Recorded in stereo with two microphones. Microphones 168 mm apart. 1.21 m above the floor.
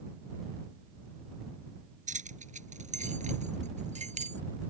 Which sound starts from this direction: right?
Keys jangling, at 2.1 s.